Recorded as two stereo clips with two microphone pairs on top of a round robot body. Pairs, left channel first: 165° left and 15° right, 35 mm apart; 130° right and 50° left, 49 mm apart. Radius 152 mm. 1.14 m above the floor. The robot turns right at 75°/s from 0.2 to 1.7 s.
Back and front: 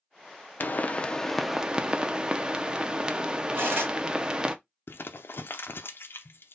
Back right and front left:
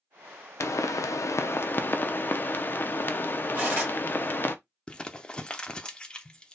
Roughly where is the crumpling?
Behind left.